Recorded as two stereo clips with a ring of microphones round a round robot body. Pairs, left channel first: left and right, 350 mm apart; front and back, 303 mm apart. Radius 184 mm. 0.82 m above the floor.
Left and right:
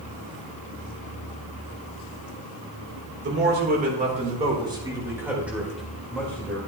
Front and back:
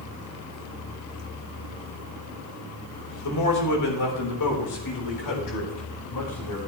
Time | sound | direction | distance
3.2 | a man speaking | 35° right | 3 m